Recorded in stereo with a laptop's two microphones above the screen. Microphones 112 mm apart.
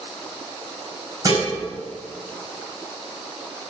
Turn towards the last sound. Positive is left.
turn(degrees=-30)  # may be behind; listen again after turning